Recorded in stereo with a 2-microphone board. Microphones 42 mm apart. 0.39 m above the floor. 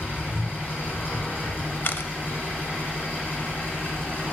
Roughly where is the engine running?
Left.